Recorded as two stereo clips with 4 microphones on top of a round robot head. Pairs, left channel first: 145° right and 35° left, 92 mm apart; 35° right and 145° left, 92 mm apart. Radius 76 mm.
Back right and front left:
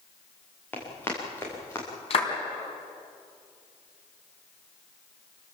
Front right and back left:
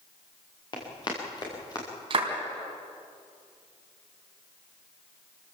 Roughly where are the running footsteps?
Right.